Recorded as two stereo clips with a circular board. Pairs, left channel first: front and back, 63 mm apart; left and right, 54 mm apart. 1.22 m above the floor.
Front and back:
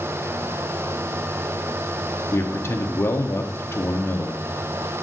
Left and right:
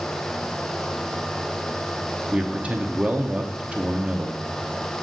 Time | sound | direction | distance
2.3 | a man speaking | 35° right | 0.8 m